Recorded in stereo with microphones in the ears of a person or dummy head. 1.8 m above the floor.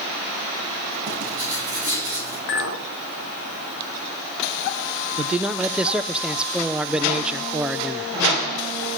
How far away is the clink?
About 1.7 m.